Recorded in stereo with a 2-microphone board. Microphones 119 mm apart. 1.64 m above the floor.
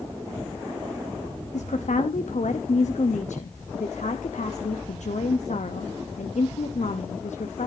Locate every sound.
1.5 s a woman speaking: 85° left, 0.8 m